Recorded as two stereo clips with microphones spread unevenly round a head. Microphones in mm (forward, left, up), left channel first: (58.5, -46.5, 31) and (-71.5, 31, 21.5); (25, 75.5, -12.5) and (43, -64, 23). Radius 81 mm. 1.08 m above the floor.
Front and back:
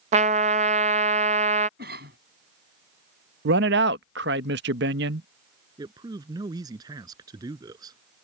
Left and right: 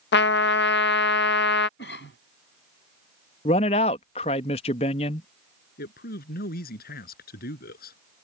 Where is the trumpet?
100° left.